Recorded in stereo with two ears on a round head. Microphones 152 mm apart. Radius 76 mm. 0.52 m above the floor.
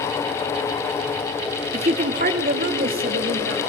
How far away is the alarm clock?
I don't hear an alarm clock.